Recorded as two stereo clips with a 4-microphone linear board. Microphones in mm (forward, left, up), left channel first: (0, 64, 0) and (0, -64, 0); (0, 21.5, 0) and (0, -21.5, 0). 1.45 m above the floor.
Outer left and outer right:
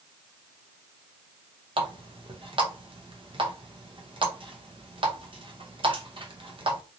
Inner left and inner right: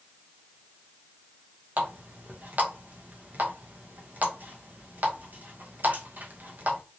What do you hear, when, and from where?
1.8 s a running tap: 45° right (ahead or behind), 0.7 m